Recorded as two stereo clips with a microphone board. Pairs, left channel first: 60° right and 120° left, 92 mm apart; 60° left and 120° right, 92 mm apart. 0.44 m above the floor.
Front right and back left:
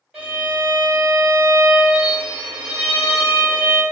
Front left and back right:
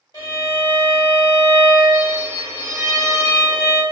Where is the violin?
35° left, 1.8 m.